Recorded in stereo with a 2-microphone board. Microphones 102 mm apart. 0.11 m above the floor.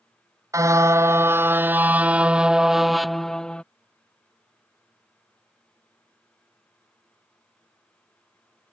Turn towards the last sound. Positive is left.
turn(degrees=10)  # may be behind; listen again after turning